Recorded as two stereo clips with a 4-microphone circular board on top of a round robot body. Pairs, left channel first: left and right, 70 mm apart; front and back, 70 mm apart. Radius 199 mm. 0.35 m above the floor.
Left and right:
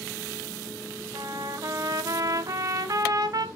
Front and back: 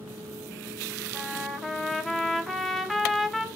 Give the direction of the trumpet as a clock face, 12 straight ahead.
3 o'clock.